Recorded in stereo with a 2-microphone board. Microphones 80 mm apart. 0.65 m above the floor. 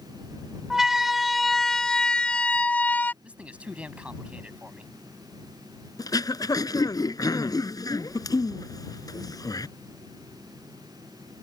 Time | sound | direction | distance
0.7 | a siren | 5° right (ahead or behind) | ?
3.2 | a man speaking | 15° right (ahead or behind) | ?
6.0 | throat clearing | 50° left (ahead or behind) | ?